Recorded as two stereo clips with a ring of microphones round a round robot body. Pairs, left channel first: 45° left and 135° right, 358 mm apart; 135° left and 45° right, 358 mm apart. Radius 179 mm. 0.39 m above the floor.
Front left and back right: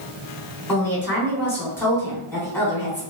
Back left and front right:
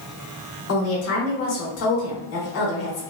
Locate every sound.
0.7 s a woman speaking: 125° left, 1.0 m